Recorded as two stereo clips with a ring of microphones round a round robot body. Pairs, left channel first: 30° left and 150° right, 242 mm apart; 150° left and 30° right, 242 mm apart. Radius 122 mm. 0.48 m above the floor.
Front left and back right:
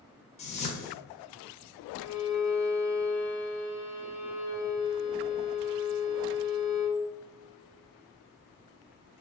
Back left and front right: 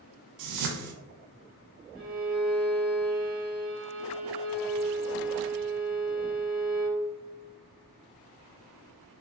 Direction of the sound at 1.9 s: 25° left.